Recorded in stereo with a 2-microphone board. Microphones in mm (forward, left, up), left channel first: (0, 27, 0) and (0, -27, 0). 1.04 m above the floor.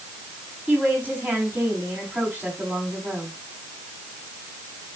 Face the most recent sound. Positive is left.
turn(degrees=-35)  # may be behind; listen again after turning